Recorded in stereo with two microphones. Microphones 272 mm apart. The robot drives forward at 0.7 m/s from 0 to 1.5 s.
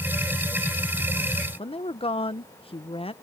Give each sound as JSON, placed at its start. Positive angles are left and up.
{"t": 1.6, "sound": "a woman speaking", "side_deg": 20}